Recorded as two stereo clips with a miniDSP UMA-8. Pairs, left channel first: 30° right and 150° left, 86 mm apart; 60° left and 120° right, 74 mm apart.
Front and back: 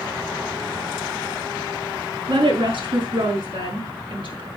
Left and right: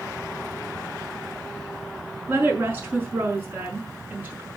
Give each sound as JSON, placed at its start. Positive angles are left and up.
{"t": 2.3, "sound": "a woman speaking", "azimuth_deg": 175, "distance_m": 5.5}